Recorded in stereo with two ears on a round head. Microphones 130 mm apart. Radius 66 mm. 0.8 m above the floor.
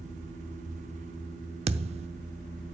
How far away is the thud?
About 0.7 m.